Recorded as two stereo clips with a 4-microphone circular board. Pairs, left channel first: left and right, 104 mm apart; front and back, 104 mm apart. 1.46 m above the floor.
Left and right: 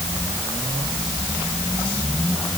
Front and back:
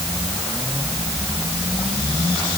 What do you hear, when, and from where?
Only background noise.